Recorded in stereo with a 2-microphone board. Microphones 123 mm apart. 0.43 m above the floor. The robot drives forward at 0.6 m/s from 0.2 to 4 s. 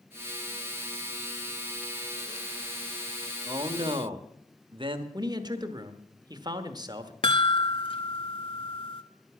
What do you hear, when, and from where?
3.5 s a man speaking: 40° right (ahead or behind), 1.1 m; by 5.0 s 45° right (ahead or behind), 1.0 m
5.1 s a man speaking: 35° right (ahead or behind), 1.1 m
7.2 s a chime: 50° left (ahead or behind), 0.8 m